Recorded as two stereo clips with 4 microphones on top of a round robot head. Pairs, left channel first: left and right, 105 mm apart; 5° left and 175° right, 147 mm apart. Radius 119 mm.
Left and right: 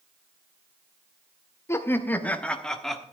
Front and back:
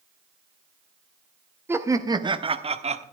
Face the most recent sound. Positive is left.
turn(degrees=180)